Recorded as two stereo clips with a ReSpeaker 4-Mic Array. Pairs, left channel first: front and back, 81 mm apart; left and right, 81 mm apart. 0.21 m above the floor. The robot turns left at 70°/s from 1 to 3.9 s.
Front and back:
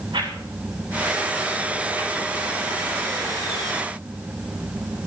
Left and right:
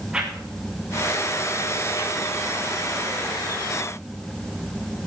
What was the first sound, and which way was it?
A whoosh, 170° right.